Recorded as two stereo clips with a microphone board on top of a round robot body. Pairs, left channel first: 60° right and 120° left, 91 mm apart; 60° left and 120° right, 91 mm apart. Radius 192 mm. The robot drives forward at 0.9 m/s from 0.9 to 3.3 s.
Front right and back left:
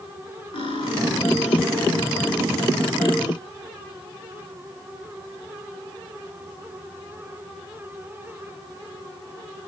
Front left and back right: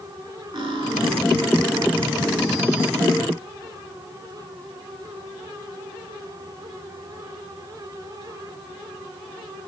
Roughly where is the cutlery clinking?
Right.